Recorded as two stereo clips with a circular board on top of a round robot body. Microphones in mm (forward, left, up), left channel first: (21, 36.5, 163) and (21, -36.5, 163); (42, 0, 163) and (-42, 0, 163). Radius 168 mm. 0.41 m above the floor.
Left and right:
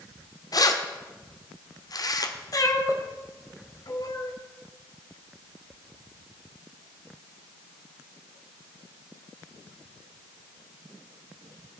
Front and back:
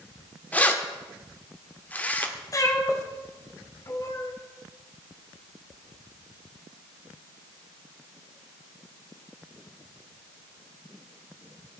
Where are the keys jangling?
70° left, 1.2 m.